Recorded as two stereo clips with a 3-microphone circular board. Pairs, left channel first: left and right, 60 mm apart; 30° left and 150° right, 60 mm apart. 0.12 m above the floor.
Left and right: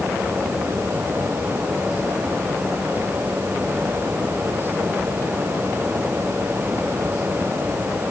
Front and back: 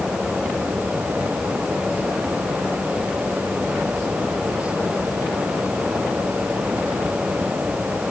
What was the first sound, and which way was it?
Only background noise.